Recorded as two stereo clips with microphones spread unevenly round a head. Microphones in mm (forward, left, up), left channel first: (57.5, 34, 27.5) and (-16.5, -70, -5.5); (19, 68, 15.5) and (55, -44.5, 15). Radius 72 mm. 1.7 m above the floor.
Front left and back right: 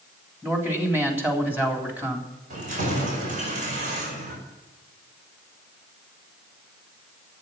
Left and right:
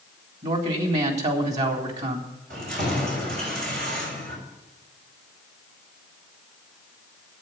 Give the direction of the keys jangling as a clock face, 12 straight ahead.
3 o'clock.